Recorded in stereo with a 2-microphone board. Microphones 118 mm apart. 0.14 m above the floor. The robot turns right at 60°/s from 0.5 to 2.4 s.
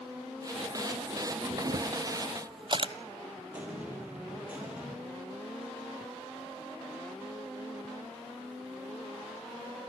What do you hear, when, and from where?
1.5 s a camera shutter: 75° right (ahead or behind), 0.8 m; by 2.9 s 45° right (ahead or behind), 0.8 m
3.5 s an explosion: 15° right (ahead or behind), 3.5 m